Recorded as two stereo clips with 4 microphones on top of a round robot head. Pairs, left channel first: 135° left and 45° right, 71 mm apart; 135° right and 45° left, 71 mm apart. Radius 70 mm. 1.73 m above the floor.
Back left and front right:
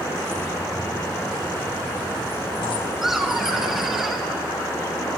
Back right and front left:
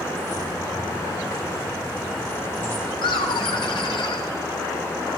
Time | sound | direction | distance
0.1 | keys jangling | 165° right | 3.5 m
3.0 | laughter | 130° right | 1.8 m